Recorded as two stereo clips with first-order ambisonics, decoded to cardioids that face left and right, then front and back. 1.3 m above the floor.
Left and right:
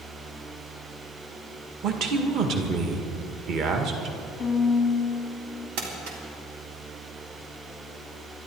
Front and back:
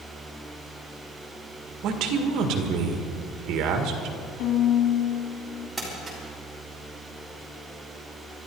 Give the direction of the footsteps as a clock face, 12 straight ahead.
No footsteps in this recording.